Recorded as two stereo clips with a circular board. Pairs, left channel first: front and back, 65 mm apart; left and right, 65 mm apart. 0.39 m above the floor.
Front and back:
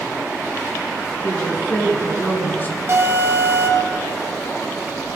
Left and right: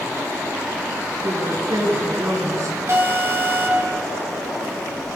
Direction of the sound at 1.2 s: 60° right.